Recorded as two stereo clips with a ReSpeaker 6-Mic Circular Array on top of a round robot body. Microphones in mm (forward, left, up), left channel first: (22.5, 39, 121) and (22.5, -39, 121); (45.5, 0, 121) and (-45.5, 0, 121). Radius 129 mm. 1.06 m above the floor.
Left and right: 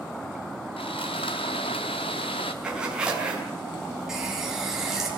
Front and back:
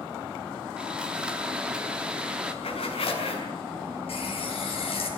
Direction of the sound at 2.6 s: 10° right.